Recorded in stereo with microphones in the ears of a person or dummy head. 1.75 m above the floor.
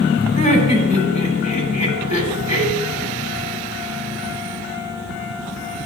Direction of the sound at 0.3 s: 45° left (ahead or behind).